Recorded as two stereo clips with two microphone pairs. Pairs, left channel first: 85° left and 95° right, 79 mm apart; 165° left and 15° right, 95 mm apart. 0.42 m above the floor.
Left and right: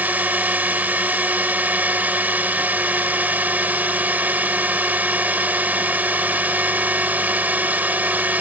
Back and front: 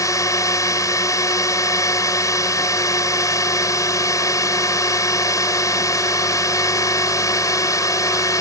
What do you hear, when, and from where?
0.0 s a drone: 160° right